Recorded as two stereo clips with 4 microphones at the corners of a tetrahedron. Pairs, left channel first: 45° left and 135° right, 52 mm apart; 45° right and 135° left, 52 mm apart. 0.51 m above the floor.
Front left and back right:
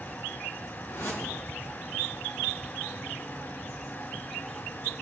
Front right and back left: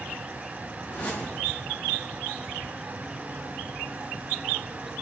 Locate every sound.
0.8 s a whoosh: 15° left, 4 m